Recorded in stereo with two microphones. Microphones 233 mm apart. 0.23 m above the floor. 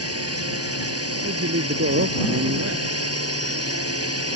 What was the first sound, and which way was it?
A drone, 70° right (ahead or behind).